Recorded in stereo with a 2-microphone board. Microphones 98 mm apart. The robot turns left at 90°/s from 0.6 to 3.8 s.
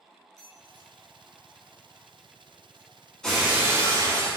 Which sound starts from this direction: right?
A squeak, at 0.4 s.